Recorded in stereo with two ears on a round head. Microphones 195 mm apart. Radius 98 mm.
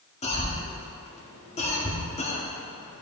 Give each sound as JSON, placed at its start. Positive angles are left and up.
{"t": 0.2, "sound": "a cough", "side_deg": 30, "distance_m": 1.7}